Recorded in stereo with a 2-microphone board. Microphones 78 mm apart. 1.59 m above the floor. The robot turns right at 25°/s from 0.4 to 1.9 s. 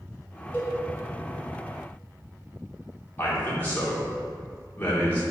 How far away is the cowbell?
About 2 m.